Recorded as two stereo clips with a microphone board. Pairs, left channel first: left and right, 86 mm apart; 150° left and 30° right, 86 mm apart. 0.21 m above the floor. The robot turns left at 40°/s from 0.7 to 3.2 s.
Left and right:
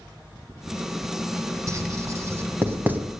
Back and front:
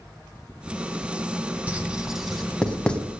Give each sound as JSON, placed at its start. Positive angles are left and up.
{"t": 1.7, "sound": "writing", "azimuth_deg": -95, "distance_m": 1.5}